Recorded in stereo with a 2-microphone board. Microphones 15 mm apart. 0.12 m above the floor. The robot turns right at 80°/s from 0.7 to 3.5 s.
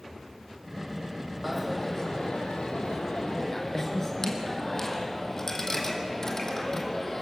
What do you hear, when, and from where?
1.4 s a dropped coin: 5° right, 2.5 m; by 7.2 s 160° left, 2.5 m